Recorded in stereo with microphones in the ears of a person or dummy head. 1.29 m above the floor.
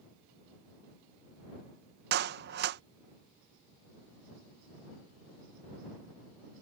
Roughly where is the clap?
Right.